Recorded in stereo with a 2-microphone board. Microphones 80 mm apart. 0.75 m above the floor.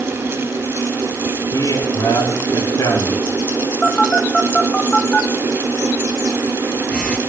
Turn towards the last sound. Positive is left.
turn(degrees=15)  # may be behind; listen again after turning